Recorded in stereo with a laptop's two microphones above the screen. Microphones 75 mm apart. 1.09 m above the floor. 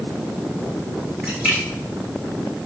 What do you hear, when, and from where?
1.2 s a splash: 20° right (ahead or behind), 2.5 m